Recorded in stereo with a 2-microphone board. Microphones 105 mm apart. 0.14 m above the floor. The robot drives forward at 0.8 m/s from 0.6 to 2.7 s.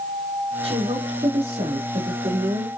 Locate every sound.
0.6 s a woman speaking: 75° right (ahead or behind), 4.5 m; by 2.7 s 70° right (ahead or behind), 4.5 m